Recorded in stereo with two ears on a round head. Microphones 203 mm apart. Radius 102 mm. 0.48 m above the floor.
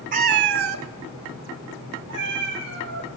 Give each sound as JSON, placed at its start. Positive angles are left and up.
{"t": 0.1, "sound": "a cat meowing", "side_deg": -35, "distance_m": 0.7}